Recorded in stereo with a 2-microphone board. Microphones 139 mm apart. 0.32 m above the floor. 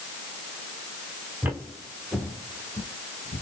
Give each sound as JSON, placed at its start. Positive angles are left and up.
{"t": 1.4, "sound": "footsteps", "side_deg": -15, "distance_m": 1.9}